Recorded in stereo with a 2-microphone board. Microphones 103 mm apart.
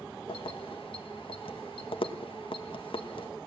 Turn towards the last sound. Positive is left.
turn(degrees=55)  # may be behind; listen again after turning